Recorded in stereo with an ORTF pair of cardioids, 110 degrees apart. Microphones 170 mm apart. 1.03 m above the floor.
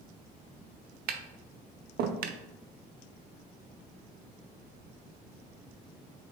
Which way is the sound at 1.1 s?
70° right.